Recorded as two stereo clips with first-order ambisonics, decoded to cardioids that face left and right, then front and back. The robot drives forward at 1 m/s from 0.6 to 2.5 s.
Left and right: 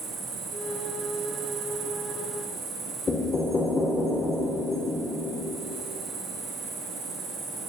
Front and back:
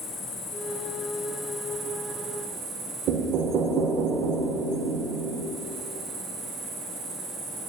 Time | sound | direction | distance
0.0 | an insect | 35° right | 1.3 m
3.1 | knocking | 155° left | 0.7 m